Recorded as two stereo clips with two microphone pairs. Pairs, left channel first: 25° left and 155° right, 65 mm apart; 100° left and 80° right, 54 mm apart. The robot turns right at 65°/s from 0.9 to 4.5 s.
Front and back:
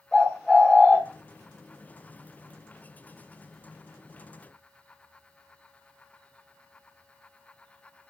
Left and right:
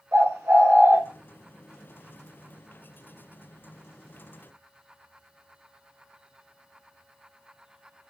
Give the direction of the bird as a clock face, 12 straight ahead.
2 o'clock.